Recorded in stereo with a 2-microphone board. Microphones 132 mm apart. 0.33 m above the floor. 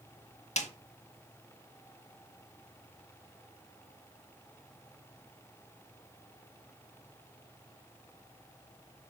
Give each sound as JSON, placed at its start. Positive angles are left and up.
{"t": 0.6, "sound": "a snare drum", "side_deg": 55, "distance_m": 1.2}